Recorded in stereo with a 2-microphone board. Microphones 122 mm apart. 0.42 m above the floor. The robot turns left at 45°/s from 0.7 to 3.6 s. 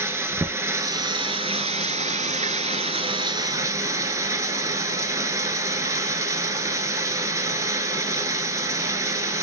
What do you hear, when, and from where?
0.0 s running water: 25° right, 0.7 m; by 9.4 s 155° right, 0.7 m